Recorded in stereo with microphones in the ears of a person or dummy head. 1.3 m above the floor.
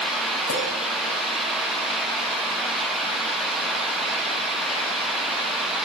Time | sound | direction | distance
0.5 | a clink | 80° left | 4.5 m